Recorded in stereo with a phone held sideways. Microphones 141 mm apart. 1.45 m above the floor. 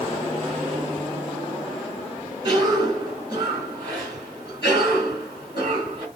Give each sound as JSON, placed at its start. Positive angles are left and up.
{"t": 2.4, "sound": "a cough", "side_deg": -40, "distance_m": 3.5}